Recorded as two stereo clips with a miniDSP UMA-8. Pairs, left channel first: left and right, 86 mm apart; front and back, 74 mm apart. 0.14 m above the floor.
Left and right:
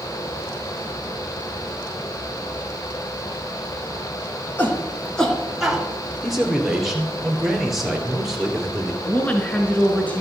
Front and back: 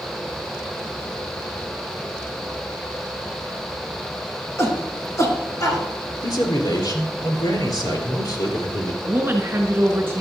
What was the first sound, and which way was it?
A shout, 35° left.